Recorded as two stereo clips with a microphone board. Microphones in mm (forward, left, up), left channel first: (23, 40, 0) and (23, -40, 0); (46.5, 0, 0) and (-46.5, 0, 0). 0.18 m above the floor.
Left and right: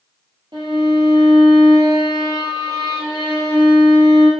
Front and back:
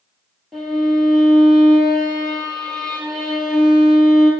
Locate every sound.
0.5 s a violin: 85° right, 1.3 m